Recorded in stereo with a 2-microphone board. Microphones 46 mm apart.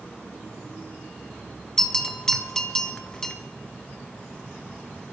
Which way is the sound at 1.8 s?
15° left (ahead or behind).